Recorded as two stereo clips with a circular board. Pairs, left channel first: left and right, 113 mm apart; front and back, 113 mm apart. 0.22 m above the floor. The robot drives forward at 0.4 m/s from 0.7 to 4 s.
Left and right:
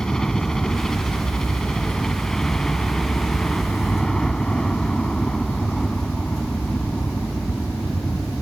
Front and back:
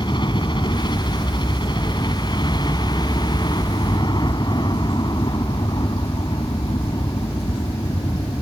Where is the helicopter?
5° left.